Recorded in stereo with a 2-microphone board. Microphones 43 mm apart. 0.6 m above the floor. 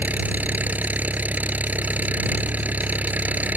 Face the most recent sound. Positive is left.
turn(degrees=-40)  # may be behind; listen again after turning